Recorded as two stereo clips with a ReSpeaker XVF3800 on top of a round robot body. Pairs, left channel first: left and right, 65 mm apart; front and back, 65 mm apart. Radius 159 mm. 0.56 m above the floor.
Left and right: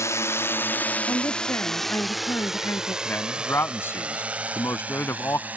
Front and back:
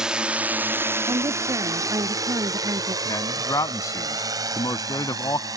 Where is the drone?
105° left; by 5.6 s 155° right.